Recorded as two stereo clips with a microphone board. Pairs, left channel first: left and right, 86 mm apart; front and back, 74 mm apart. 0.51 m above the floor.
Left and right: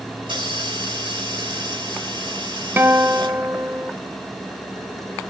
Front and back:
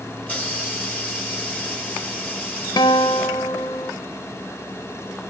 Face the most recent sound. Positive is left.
turn(degrees=-25)